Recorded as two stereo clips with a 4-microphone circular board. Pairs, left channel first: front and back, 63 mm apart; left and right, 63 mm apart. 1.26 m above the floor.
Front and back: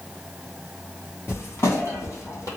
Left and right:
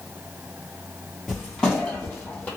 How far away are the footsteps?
About 1.6 m.